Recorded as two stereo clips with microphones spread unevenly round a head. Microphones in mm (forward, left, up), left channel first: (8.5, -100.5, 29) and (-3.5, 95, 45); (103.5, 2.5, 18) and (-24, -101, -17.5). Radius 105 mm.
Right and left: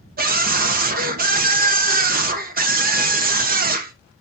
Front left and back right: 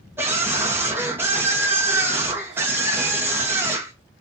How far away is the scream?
About 1.4 m.